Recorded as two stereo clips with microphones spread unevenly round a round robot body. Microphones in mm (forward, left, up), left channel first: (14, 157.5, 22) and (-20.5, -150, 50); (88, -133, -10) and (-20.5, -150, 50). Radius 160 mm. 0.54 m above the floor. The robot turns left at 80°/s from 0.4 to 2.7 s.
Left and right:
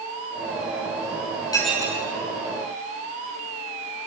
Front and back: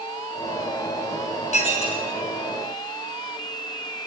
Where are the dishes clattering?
5° left, 4.5 m; by 2.0 s 35° right, 4.5 m.